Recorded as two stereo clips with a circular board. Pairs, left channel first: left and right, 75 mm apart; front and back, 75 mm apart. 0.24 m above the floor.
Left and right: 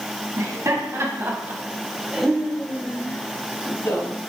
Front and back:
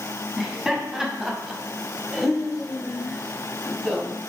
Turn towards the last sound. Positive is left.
turn(degrees=85)